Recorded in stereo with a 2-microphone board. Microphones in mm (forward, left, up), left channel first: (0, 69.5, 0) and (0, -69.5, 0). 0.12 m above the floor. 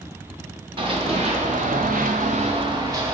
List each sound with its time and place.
0.8 s running footsteps: 40° right (ahead or behind), 1.2 m; by 3.2 s 20° right (ahead or behind), 1.0 m